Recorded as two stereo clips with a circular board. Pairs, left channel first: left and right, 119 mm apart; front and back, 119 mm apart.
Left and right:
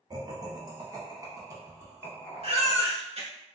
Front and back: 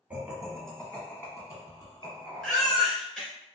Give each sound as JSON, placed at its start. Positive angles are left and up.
{"t": 0.1, "sound": "laughter", "azimuth_deg": -110, "distance_m": 1.2}
{"t": 2.4, "sound": "a baby crying", "azimuth_deg": -85, "distance_m": 1.7}